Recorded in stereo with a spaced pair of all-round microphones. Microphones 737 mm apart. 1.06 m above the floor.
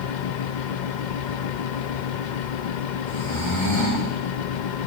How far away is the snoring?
About 4 m.